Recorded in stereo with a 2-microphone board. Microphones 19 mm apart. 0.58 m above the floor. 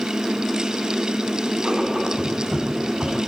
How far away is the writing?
About 5.5 m.